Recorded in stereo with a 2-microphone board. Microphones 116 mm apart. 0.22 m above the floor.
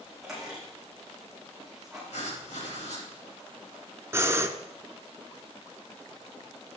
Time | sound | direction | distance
0.2 | a squeak | centre (ahead or behind) | 5.5 m
2.1 | writing | 70° left (ahead or behind) | 3.5 m
4.1 | breathing | 25° right (ahead or behind) | 0.7 m